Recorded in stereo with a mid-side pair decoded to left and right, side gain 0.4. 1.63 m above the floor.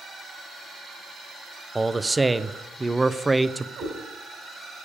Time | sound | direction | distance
1.8 | a man speaking | 15° right | 0.6 m
3.8 | a cat meowing | 65° right | 3 m